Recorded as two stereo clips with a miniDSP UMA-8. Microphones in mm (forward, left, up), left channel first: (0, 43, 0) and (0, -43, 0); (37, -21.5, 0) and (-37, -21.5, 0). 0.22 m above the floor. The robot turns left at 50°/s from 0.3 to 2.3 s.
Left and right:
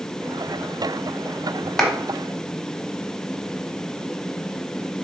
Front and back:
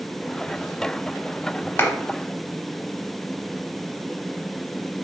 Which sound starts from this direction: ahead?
A clap, at 1.8 s.